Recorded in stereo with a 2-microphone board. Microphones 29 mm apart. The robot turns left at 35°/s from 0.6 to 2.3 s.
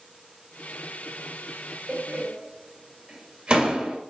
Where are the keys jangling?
No keys jangling in this recording.